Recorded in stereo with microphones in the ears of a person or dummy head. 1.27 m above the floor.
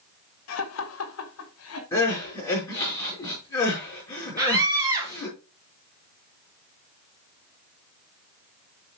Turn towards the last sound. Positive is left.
turn(degrees=-25)  # may be behind; listen again after turning